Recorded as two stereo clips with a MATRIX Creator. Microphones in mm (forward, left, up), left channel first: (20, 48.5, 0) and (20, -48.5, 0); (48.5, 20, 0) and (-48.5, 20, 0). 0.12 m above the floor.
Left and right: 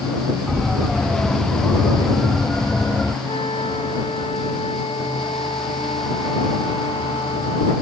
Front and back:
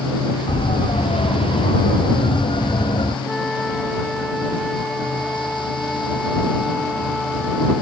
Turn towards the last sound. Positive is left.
turn(degrees=85)